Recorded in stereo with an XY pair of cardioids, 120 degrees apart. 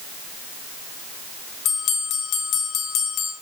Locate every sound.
1.6 s a bell: 70° left, 1.5 m